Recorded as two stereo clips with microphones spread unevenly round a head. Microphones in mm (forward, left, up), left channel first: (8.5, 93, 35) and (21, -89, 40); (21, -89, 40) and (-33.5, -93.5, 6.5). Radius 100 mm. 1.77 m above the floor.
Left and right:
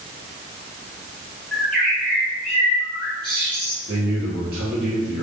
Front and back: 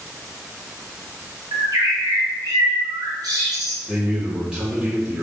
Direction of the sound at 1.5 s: Straight behind.